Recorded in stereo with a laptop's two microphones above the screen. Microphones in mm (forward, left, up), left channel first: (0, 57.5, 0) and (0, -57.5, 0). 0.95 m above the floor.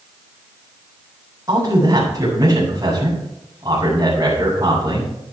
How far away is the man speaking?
About 5 m.